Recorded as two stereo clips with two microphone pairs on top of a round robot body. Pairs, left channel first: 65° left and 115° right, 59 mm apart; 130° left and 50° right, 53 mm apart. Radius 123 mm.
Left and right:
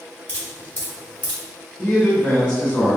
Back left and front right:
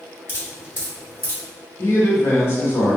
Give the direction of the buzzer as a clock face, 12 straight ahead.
No buzzer in this recording.